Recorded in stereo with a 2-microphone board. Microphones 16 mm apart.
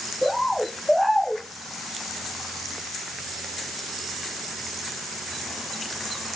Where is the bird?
Centre (ahead or behind), 0.8 m.